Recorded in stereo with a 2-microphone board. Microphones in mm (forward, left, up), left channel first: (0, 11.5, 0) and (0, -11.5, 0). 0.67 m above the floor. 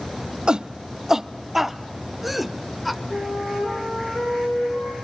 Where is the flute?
85° left, 10 m.